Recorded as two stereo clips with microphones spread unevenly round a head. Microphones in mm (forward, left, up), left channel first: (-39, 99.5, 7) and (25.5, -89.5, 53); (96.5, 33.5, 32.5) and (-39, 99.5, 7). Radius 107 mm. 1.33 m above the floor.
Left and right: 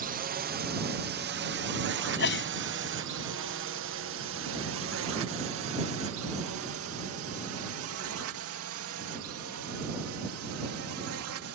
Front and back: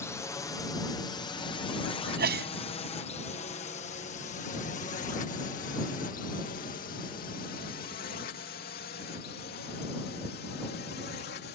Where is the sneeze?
145° left.